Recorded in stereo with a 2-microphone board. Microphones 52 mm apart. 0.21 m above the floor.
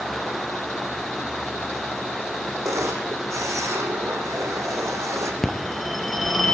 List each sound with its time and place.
2.6 s a camera shutter: 85° right, 3.5 m
5.4 s a phone ringing: 5° left (ahead or behind), 2 m